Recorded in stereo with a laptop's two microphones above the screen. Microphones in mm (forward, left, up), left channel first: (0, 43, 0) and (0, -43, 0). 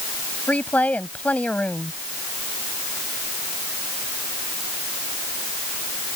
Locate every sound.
0.5 s a woman speaking: 20° left (ahead or behind)